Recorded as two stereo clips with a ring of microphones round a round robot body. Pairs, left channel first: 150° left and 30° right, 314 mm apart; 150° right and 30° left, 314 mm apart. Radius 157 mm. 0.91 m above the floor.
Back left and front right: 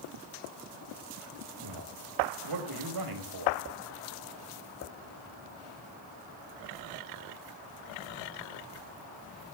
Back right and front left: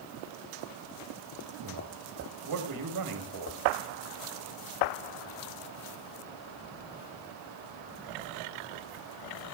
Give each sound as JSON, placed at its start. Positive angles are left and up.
{"t": 1.6, "sound": "a man speaking", "azimuth_deg": 0, "distance_m": 5.0}